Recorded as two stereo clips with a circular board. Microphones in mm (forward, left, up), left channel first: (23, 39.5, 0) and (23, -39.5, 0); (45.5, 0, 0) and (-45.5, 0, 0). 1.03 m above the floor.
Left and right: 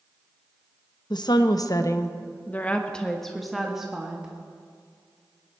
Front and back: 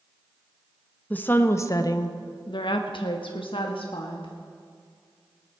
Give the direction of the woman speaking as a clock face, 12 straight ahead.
10 o'clock.